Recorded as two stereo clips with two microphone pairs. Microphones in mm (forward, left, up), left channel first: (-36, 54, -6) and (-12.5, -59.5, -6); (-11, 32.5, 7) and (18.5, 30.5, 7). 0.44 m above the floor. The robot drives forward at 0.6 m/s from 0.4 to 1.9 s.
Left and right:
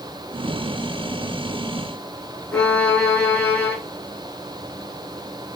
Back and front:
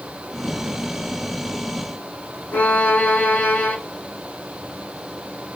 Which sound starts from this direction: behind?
A violin, at 2.5 s.